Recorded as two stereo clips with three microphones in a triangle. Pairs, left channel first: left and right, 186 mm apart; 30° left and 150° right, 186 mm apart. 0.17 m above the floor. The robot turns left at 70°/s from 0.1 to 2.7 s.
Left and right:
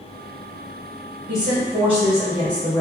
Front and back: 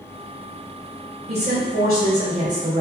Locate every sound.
1.3 s a woman speaking: 100° right, 1.9 m; by 2.8 s 160° left, 1.9 m